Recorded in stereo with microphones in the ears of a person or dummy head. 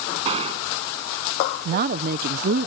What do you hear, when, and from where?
0.2 s a gunshot: 35° right (ahead or behind)
1.6 s a woman speaking: 50° right (ahead or behind)